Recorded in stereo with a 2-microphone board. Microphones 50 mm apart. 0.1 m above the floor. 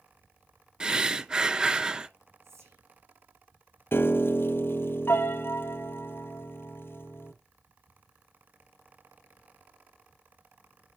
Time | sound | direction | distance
0.8 | breathing | 15° right (ahead or behind) | 0.6 m
2.4 | whispering | 70° right (ahead or behind) | 7 m
3.9 | a piano | 55° left (ahead or behind) | 0.9 m